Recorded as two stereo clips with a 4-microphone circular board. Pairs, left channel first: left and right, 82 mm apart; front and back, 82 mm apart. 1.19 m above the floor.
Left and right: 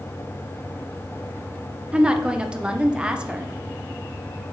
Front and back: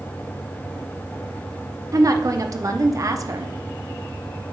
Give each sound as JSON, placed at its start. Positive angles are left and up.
{"t": 1.9, "sound": "a woman speaking", "azimuth_deg": -165, "distance_m": 0.7}